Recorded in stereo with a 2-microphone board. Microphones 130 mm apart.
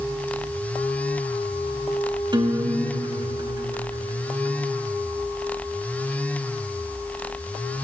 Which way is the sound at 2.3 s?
35° right (ahead or behind).